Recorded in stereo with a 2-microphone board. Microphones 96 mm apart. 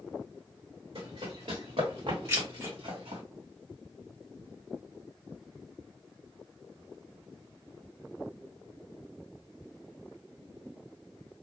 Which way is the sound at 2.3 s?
30° right (ahead or behind).